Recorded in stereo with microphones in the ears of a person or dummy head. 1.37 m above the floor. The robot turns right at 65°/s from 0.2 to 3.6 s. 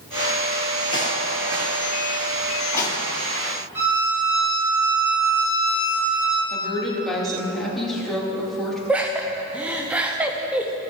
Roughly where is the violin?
Centre.